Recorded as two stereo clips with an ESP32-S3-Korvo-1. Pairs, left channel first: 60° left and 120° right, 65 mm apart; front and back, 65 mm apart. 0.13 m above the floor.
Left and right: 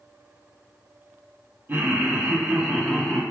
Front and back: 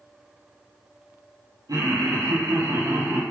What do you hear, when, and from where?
1.7 s laughter: straight behind, 3 m; by 3.2 s 145° left, 3 m